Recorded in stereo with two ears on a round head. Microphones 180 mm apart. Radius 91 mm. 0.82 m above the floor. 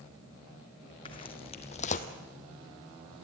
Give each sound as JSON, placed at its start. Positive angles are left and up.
{"t": 1.1, "sound": "footsteps", "side_deg": 25, "distance_m": 2.0}